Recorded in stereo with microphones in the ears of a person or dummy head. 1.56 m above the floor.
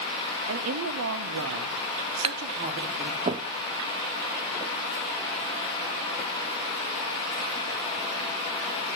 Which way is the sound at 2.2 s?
25° right (ahead or behind).